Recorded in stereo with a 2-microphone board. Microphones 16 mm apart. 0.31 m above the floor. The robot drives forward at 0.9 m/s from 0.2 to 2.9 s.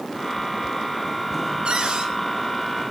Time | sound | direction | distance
1.6 | a cupboard door | 65° right (ahead or behind) | 4.5 m